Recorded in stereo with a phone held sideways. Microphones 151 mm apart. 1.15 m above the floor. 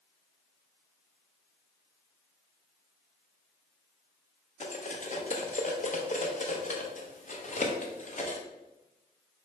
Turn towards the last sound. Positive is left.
turn(degrees=50)  # may be behind; listen again after turning